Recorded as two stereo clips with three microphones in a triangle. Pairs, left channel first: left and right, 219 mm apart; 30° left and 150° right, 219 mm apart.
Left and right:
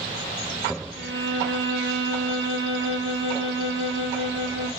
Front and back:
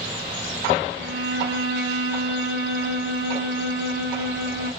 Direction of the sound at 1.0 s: 115° right.